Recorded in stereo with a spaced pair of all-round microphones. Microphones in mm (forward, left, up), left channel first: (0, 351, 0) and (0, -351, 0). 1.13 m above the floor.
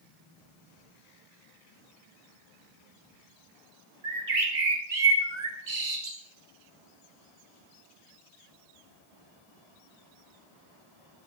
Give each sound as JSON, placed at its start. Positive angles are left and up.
{"t": 4.0, "sound": "a bird", "side_deg": -75, "distance_m": 1.2}